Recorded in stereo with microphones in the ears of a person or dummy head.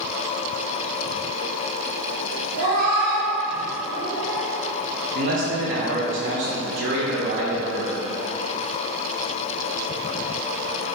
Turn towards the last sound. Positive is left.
turn(degrees=-60)  # may be behind; listen again after turning